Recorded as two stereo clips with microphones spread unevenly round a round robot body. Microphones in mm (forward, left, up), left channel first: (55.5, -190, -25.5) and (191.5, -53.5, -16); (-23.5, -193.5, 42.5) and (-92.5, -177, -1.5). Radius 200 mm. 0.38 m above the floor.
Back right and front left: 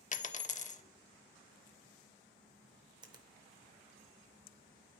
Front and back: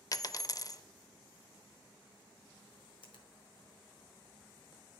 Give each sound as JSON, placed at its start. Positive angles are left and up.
{"t": 0.1, "sound": "a dropped coin", "azimuth_deg": -80, "distance_m": 0.5}
{"t": 3.0, "sound": "a finger snap", "azimuth_deg": -10, "distance_m": 0.8}